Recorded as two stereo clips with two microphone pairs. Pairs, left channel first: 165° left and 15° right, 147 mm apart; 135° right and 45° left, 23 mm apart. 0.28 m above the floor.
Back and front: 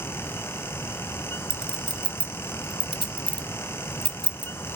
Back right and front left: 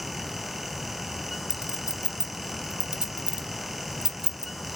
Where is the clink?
85° left, 1.0 m.